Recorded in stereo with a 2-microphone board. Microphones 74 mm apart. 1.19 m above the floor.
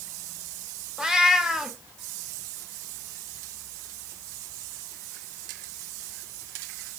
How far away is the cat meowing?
About 0.5 m.